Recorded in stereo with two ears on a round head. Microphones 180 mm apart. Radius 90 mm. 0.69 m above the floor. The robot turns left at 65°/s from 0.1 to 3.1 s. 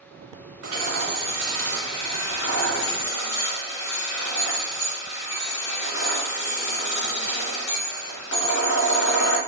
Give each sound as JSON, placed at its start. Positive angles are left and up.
{"t": 0.6, "sound": "hammering", "azimuth_deg": -125, "distance_m": 2.5}